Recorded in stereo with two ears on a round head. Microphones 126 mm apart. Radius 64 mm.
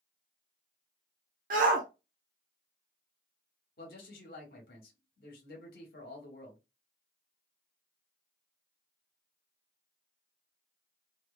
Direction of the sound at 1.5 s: 65° right (ahead or behind).